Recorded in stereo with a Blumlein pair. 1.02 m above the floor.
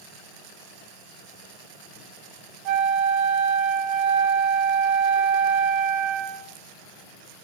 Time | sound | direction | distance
2.6 | a flute | 40° right | 0.6 m